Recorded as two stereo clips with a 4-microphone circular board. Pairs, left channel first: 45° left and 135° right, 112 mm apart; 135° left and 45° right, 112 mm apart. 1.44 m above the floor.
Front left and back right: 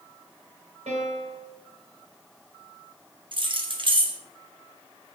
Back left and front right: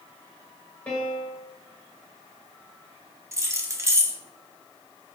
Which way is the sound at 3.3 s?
105° right.